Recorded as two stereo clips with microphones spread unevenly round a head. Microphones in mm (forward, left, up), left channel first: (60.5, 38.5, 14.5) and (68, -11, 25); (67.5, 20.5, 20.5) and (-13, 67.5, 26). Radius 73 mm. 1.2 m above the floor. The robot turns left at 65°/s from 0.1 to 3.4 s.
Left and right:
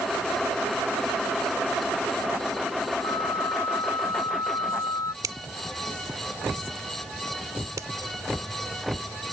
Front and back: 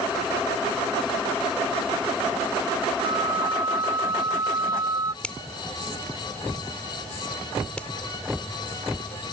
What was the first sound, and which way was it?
A flute, 125° left.